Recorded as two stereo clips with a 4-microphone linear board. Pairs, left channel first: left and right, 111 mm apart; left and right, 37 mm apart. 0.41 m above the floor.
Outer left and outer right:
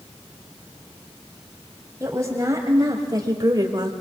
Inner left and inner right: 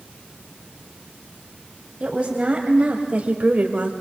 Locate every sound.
2.0 s a woman speaking: 30° right (ahead or behind), 2.5 m; by 3.9 s 40° right (ahead or behind), 1.6 m